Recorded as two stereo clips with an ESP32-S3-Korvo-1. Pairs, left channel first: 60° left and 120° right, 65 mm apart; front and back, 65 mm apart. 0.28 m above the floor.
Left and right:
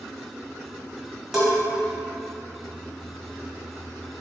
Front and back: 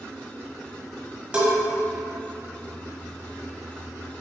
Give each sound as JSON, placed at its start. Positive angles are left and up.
{"t": 1.3, "sound": "a bell", "azimuth_deg": 160, "distance_m": 1.3}